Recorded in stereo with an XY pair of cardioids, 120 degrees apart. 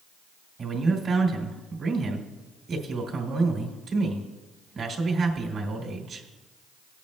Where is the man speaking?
50° right, 3 m.